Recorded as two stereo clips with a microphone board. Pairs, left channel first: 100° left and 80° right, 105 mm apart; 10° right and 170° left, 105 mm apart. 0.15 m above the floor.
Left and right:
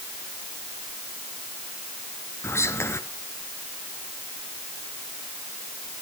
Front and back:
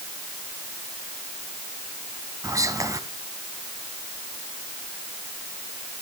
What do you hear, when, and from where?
2.4 s whispering: 140° left, 1.5 m